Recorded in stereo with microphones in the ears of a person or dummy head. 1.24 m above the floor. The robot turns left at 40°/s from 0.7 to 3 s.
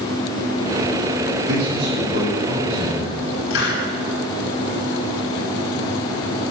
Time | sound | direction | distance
1.5 | a man speaking | 55° right | 7.5 m
3.5 | a hiss | 65° left (ahead or behind) | 4.5 m